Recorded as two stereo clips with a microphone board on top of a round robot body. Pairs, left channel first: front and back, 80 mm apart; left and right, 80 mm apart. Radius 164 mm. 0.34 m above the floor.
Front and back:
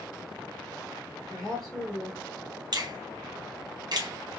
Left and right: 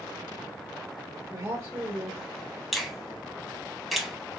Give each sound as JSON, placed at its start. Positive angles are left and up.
{"t": 1.3, "sound": "a woman speaking", "azimuth_deg": -95, "distance_m": 1.6}
{"t": 2.7, "sound": "a finger snap", "azimuth_deg": 180, "distance_m": 1.0}